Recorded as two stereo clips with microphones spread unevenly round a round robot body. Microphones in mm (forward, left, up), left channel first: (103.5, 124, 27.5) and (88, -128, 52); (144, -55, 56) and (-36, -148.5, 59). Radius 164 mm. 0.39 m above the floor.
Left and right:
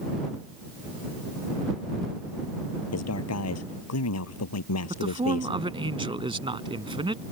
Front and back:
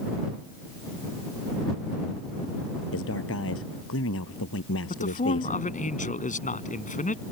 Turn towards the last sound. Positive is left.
turn(degrees=-25)